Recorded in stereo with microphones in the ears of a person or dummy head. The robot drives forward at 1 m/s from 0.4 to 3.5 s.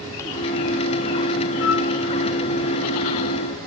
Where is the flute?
70° left (ahead or behind), 4 m; by 1.9 s 65° left (ahead or behind), 4 m.